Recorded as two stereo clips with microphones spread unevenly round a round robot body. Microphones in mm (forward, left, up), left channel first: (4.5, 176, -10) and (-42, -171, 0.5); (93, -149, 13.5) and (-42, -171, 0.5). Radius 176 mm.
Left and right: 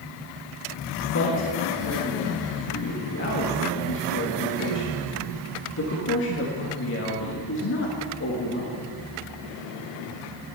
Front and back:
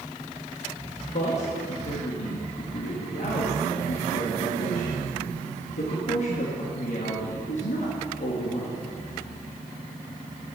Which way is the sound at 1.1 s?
35° left.